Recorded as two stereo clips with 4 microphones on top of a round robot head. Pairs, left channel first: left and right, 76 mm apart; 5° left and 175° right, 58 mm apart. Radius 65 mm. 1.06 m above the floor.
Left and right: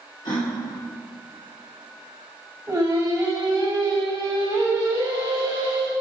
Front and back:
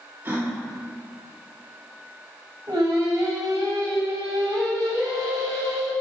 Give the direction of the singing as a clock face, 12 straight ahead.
5 o'clock.